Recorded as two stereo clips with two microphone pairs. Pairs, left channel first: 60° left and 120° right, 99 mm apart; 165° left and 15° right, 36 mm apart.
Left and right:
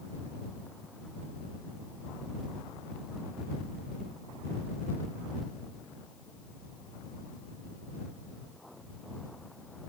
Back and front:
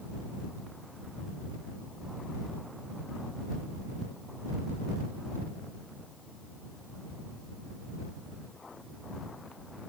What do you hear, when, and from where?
Only background noise.